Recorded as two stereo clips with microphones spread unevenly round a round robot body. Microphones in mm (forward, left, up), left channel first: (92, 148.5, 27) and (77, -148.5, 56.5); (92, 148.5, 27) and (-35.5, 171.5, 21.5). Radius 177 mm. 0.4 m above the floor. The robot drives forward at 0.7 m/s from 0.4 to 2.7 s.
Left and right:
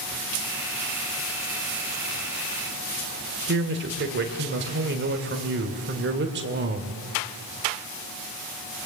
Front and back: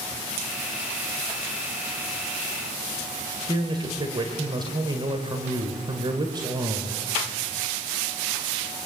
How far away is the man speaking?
About 1.9 m.